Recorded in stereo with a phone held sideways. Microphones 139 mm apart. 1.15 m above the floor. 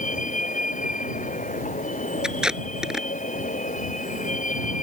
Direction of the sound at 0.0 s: 65° left (ahead or behind).